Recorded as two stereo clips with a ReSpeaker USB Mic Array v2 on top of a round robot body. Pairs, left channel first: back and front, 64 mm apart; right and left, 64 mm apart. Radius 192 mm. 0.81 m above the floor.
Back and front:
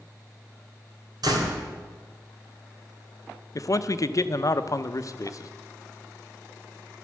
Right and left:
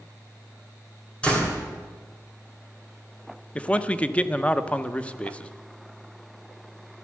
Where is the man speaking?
160° right, 1.0 m.